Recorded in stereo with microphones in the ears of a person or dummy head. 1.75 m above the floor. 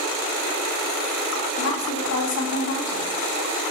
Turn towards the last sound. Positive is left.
turn(degrees=80)